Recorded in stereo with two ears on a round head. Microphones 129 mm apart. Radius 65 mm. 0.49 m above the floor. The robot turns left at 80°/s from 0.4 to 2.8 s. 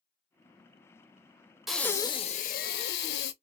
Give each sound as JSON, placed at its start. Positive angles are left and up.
{"t": 1.7, "sound": "breathing", "azimuth_deg": 180, "distance_m": 0.5}